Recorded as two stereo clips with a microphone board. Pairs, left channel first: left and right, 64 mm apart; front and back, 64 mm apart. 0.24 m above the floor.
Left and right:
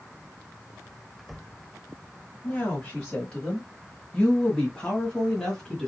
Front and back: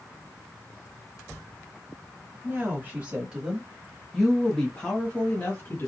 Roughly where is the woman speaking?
Behind left.